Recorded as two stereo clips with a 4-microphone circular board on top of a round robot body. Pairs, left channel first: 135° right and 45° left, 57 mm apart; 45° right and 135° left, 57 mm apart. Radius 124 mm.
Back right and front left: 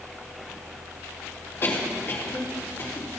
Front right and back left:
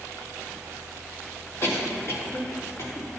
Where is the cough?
85° right, 3.5 m.